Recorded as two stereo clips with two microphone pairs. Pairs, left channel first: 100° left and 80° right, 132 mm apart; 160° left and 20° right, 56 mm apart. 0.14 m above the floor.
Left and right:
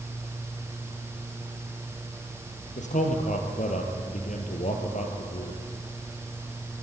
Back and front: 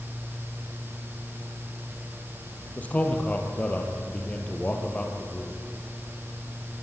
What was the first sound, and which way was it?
A man speaking, 100° left.